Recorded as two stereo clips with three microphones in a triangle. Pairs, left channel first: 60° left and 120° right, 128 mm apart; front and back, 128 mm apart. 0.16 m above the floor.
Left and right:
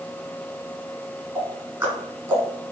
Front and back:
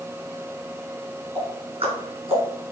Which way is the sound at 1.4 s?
175° right.